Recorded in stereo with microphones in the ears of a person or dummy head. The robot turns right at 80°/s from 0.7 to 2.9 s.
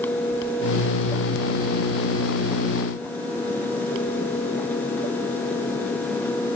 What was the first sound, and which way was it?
Only background noise.